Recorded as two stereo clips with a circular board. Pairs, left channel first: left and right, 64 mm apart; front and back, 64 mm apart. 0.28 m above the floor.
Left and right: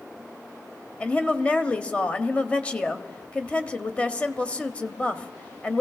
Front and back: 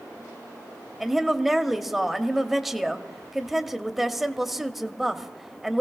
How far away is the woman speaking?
About 0.9 m.